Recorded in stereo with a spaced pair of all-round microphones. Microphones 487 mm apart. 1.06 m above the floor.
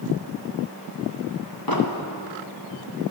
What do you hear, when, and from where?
1.7 s an explosion: 45° left (ahead or behind), 1.7 m